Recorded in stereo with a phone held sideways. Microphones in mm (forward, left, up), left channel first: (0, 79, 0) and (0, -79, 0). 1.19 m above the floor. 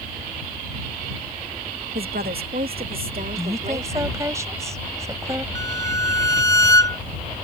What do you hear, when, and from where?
1.9 s a woman speaking: 75° right (ahead or behind); by 4.3 s 55° right (ahead or behind)
3.4 s a woman speaking: 20° right (ahead or behind)
5.5 s a violin: 20° left (ahead or behind)